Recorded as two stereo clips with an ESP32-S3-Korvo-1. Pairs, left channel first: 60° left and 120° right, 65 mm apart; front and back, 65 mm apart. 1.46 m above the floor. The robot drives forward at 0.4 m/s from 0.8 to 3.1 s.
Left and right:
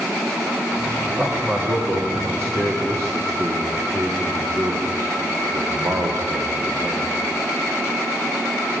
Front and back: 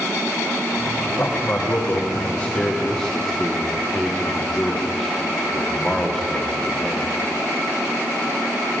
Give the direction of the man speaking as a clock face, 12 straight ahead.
2 o'clock.